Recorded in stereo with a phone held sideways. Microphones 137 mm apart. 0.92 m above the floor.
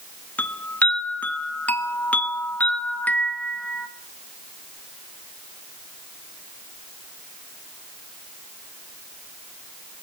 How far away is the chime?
About 0.9 m.